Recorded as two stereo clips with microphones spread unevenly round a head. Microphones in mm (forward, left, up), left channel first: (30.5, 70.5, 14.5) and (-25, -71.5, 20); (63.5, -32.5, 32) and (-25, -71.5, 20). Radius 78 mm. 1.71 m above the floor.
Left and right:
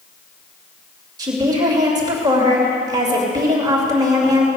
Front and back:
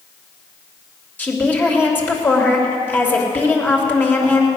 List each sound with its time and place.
1.2 s a woman speaking: 45° right, 3 m